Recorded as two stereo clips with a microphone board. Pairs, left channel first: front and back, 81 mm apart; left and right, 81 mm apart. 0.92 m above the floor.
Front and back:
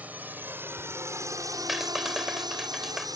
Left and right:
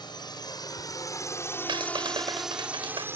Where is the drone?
110° left; by 3.2 s 145° right.